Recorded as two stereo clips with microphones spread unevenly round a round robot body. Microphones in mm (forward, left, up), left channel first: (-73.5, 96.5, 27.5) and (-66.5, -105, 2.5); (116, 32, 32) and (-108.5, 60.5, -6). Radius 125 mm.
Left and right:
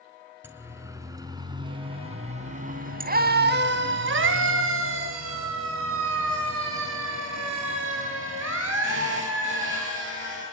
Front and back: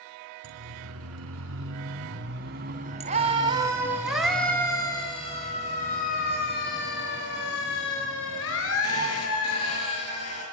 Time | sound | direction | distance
0.4 | a siren | 165° right | 5 m